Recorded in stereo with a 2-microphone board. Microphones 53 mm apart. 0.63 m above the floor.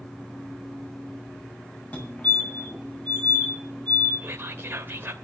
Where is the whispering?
40° right (ahead or behind), 2 m.